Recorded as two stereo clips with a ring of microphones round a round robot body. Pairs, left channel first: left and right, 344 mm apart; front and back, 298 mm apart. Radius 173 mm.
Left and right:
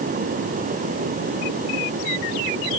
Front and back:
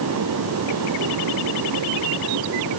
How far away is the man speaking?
I don't hear a man speaking.